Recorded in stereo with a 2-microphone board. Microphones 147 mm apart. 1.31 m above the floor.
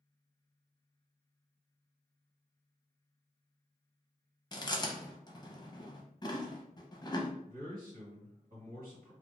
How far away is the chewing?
About 0.5 m.